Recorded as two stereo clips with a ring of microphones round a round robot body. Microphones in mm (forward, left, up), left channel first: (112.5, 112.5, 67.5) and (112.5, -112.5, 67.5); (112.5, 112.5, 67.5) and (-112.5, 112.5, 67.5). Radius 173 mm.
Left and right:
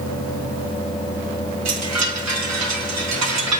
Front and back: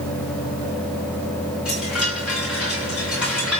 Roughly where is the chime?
Right.